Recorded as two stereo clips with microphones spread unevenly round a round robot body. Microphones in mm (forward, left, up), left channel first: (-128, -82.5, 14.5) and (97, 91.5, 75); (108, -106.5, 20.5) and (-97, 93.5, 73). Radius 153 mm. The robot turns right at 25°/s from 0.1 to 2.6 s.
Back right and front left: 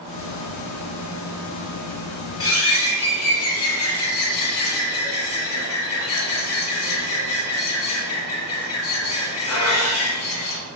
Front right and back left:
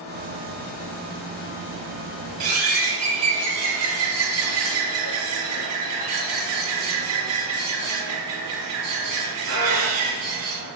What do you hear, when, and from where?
2.4 s a bird: 170° left, 3 m; by 10.6 s 175° left, 3 m